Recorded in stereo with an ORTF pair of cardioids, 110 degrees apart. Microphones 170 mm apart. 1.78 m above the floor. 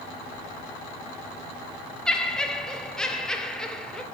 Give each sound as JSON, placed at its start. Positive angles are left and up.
{"t": 2.1, "sound": "laughter", "azimuth_deg": 5, "distance_m": 0.6}